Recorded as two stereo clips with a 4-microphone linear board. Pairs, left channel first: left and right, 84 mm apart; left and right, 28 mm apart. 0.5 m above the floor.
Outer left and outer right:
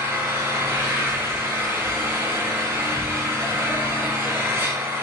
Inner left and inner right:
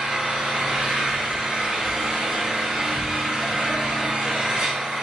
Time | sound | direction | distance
0.0 | an engine running | 30° right (ahead or behind) | 1.1 m